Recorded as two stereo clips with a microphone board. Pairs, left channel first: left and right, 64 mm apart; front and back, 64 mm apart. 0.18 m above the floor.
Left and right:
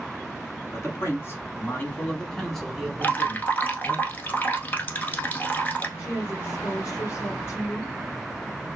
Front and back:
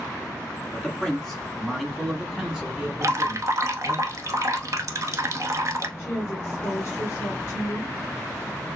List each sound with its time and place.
0.7 s a man speaking: 75° left, 1.5 m; by 4.0 s 125° right, 1.4 m
3.0 s dripping: 150° left, 0.9 m
6.0 s a woman speaking: 50° left, 2.5 m